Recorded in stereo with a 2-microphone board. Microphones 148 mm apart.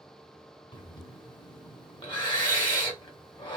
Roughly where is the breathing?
Left.